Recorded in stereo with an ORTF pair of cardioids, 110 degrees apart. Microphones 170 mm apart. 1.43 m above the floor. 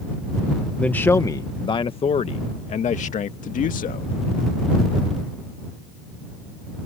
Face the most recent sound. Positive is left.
turn(degrees=55)